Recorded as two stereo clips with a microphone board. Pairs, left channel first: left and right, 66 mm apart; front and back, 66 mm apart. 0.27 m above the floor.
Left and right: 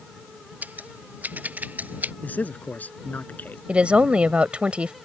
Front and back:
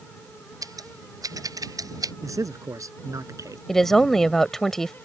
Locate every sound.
0.6 s scissors: 155° right
2.2 s a man speaking: 155° left
3.7 s a woman speaking: 70° right